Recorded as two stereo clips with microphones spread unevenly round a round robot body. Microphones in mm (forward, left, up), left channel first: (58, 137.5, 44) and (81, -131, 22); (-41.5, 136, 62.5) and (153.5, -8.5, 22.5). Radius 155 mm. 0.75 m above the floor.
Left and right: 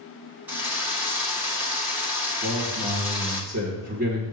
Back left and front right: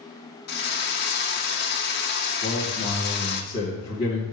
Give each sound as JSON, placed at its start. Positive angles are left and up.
{"t": 0.5, "sound": "a drill", "azimuth_deg": -165, "distance_m": 1.6}
{"t": 2.4, "sound": "a man speaking", "azimuth_deg": -145, "distance_m": 2.0}